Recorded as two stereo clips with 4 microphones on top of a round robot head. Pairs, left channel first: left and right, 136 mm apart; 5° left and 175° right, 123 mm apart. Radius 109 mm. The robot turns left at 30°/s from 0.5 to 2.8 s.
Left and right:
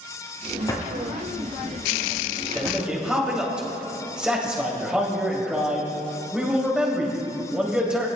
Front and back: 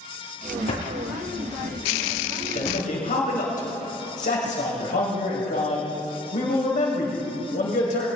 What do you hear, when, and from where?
0.7 s a drawer: 25° left, 4.5 m; by 2.8 s 35° right, 4.5 m
2.5 s a man speaking: straight ahead, 3 m; by 8.1 s 10° right, 3 m